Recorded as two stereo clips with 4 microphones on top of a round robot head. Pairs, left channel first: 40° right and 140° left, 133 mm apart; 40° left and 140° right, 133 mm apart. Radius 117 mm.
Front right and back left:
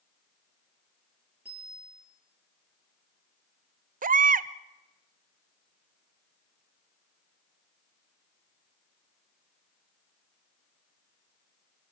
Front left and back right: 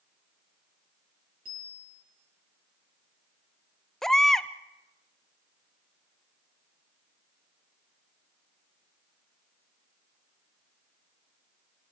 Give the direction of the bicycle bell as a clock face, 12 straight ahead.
5 o'clock.